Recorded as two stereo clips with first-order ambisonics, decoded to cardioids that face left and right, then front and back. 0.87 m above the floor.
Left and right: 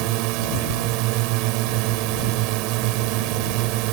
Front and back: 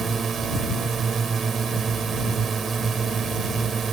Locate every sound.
0.0 s a drone: 110° right